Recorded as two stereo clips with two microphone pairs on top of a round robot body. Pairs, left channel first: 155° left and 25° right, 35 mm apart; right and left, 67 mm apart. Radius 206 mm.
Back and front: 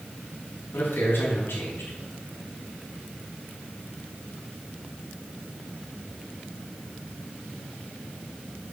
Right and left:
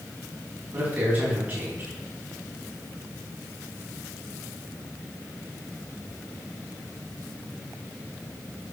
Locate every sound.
0.7 s a man speaking: 155° left, 4.5 m